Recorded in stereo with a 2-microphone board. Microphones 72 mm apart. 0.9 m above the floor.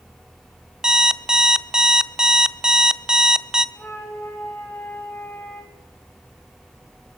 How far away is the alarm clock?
About 0.6 m.